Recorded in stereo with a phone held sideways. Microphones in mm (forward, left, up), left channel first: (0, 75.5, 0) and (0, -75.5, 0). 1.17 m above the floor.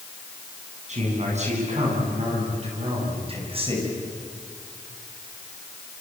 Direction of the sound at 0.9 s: 50° right (ahead or behind).